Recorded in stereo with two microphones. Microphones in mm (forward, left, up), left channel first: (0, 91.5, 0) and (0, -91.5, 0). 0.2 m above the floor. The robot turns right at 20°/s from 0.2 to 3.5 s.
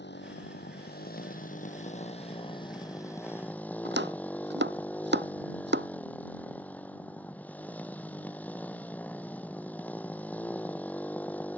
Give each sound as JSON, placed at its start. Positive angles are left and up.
{"t": 0.0, "sound": "a motorcycle", "azimuth_deg": 105}
{"t": 3.9, "sound": "chopping", "side_deg": -80}